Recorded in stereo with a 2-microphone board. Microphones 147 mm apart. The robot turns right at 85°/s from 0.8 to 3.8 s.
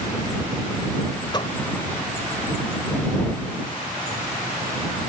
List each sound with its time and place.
1.3 s a door slam: 30° left (ahead or behind); by 1.6 s 45° left (ahead or behind)